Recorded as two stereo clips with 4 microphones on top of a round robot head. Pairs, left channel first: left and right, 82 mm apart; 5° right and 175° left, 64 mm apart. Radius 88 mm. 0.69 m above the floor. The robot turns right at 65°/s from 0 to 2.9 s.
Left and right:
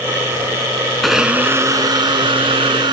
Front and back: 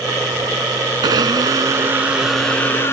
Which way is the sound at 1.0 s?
Straight behind.